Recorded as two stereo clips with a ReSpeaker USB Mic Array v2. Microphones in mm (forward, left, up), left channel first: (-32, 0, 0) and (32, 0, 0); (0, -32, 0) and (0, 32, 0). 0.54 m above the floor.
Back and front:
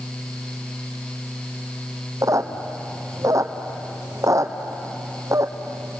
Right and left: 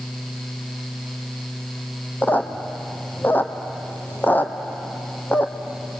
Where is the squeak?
30° right, 1.7 m.